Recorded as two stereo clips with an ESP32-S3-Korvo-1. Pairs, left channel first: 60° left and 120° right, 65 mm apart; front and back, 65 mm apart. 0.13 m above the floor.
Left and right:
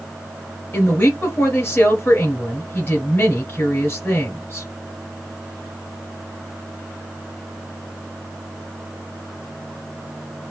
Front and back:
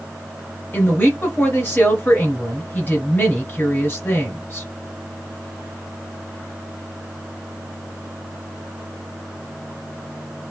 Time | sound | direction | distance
0.7 | a woman speaking | 35° left | 1.8 m